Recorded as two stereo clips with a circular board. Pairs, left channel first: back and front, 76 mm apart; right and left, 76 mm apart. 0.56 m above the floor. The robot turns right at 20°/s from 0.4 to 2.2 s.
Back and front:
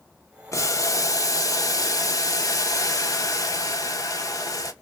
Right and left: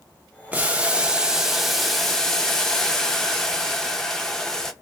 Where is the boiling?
155° left, 0.5 m; by 4.7 s 170° right, 0.5 m.